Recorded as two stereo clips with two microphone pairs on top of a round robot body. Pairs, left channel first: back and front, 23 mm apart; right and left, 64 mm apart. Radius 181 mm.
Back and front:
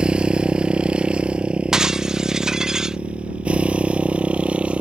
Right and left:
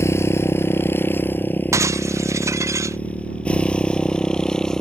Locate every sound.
0.0 s a motorcycle: 45° right; by 4.8 s 10° right
1.7 s breaking glass: 55° left